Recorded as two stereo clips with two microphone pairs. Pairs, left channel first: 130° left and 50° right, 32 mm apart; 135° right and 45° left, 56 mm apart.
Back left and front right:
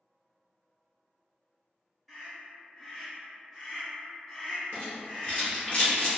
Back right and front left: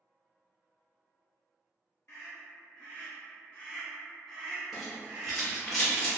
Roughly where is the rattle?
Behind left.